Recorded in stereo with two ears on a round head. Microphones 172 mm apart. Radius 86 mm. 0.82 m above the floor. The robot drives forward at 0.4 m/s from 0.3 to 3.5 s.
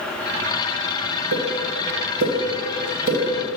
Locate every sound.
1.3 s a pop: 80° right, 1.9 m; by 3.2 s 60° right (ahead or behind), 2 m